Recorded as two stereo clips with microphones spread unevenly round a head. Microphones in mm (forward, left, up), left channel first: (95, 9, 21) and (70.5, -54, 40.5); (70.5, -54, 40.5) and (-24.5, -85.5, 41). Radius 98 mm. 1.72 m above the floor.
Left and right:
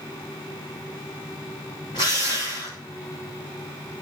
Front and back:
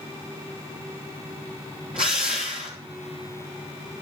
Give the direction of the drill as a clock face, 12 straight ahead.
7 o'clock.